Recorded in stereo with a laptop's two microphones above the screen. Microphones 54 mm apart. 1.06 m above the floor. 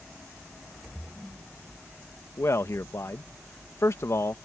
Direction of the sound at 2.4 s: 60° left (ahead or behind).